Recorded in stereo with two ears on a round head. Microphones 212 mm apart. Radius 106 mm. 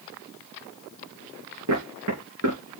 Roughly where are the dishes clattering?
I don't hear dishes clattering.